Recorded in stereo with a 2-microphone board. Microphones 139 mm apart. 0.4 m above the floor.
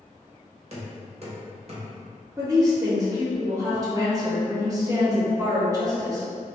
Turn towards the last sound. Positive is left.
turn(degrees=-25)  # may be behind; listen again after turning